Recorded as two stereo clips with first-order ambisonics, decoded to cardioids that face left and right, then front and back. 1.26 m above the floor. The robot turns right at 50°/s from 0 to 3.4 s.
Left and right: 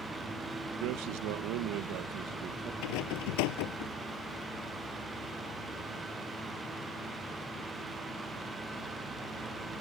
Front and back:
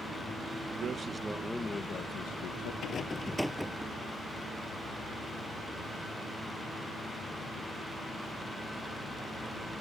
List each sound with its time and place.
0.8 s a man speaking: 120° right; by 2.7 s 25° right
2.8 s a rattle: 60° left; by 3.9 s 90° left